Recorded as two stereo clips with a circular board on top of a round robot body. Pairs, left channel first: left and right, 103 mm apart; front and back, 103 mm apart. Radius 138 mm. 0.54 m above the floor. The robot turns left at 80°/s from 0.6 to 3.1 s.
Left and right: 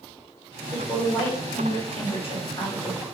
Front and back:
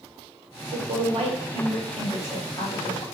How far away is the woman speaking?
About 1.8 m.